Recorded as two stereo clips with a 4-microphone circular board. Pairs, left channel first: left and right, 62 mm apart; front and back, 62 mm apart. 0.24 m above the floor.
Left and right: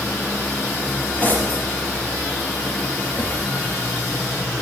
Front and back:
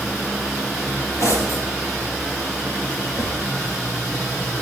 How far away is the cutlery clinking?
About 4.5 m.